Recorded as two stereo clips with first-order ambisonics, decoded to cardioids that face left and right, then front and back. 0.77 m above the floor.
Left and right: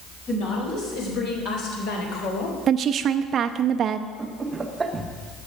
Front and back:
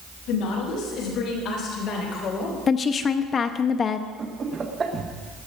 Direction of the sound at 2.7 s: 55° right.